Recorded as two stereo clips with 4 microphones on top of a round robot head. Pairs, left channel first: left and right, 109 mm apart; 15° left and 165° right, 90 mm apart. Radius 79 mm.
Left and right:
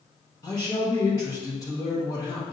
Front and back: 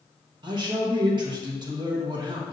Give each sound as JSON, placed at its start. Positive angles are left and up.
{"t": 0.4, "sound": "a man speaking", "azimuth_deg": 160, "distance_m": 1.0}